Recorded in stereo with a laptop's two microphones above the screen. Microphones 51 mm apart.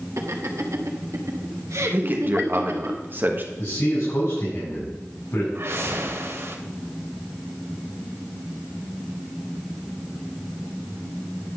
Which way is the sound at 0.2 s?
70° right (ahead or behind).